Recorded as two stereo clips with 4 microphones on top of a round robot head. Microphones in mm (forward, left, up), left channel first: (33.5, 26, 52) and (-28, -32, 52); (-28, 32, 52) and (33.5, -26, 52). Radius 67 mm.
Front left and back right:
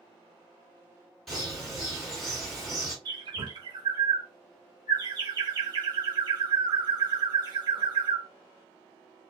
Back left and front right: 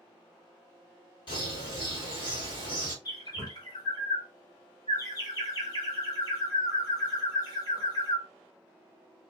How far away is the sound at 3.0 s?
About 1.5 m.